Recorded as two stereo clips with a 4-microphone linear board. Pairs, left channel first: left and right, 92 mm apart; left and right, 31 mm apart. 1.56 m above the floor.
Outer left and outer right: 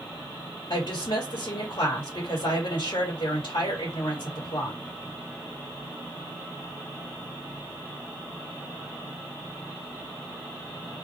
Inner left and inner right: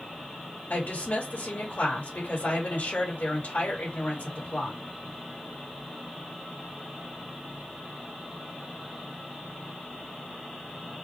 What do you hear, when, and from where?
0.7 s a woman speaking: 75° left (ahead or behind), 2.5 m